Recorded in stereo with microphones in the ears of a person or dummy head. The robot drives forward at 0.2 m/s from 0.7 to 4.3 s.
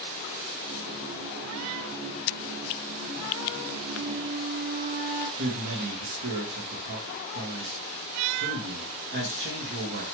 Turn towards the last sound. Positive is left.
turn(degrees=-65)  # may be behind; listen again after turning